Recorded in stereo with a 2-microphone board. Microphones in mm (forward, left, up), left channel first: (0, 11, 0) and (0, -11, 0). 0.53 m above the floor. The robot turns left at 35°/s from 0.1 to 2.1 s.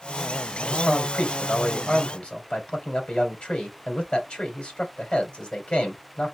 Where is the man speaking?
115° left, 2.5 m; by 6.3 s 60° left, 2.5 m.